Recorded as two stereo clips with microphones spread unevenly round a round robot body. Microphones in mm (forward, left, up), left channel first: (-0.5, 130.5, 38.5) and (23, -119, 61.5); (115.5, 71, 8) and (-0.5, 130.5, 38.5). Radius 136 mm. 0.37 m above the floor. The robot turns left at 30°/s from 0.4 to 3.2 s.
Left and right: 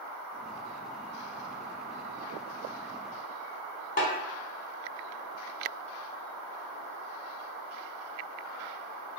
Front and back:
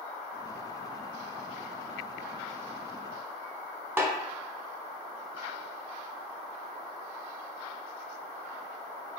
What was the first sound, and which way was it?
A snare drum, 70° left.